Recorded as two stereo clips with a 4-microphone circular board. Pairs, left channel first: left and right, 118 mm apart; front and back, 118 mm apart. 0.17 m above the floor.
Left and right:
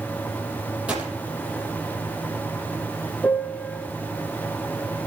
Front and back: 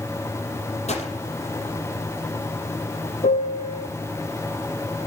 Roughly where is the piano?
Ahead.